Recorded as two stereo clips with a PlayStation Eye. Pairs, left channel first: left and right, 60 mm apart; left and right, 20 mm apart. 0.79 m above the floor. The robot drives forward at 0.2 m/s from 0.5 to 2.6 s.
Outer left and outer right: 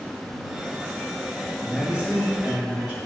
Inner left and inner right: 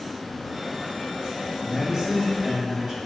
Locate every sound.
1.6 s a man speaking: 25° right (ahead or behind), 0.9 m; by 3.0 s 20° right (ahead or behind), 1.0 m